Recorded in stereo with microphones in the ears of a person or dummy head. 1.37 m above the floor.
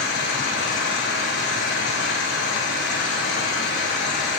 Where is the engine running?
60° left (ahead or behind), 2.5 m.